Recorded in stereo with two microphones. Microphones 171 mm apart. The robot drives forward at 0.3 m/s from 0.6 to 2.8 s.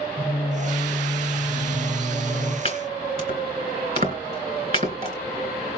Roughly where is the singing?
Centre.